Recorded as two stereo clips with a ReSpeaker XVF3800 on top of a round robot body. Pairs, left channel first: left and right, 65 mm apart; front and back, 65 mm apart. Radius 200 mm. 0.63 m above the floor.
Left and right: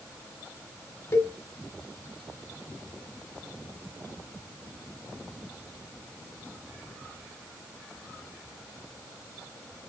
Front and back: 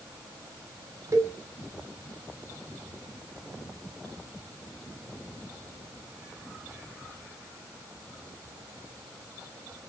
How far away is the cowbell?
About 1.8 m.